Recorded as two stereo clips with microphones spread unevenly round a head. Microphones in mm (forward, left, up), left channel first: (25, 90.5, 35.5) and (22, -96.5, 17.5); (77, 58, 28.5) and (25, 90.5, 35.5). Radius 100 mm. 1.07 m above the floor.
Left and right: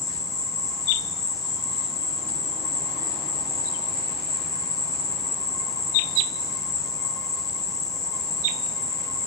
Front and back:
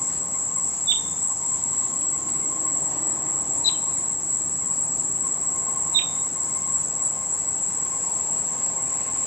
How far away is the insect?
About 0.8 m.